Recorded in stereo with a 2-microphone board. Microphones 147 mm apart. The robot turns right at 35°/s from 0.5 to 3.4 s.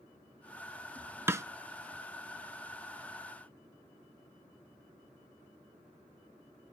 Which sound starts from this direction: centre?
A snare drum, at 1.3 s.